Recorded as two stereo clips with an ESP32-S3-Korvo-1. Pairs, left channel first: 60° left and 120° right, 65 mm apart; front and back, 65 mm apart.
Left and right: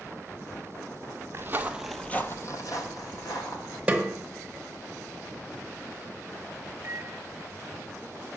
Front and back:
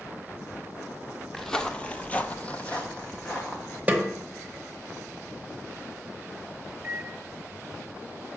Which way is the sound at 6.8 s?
130° right.